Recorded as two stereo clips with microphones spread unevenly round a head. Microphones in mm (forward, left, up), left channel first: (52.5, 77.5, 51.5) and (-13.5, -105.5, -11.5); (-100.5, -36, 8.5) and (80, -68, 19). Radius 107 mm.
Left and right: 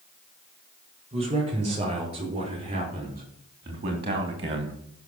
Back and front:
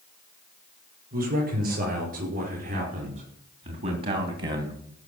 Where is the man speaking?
45° right, 7.5 m.